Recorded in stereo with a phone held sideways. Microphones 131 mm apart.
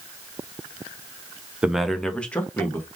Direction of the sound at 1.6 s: 5° right (ahead or behind).